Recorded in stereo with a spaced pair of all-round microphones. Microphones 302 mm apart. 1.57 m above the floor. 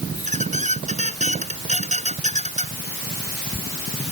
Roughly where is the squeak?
Right.